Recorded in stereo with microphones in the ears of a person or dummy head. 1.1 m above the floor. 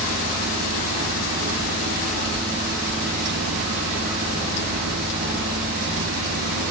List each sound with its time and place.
0.0 s a fan: 70° right (ahead or behind), 4 m